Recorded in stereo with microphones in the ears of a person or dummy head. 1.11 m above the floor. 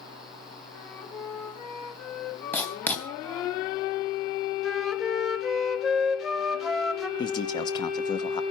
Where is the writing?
15° left (ahead or behind), 2.5 m.